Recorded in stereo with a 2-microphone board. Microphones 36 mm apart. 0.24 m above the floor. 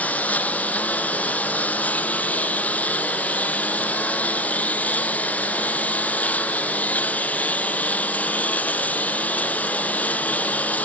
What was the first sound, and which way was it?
A lawn mower, 45° left (ahead or behind).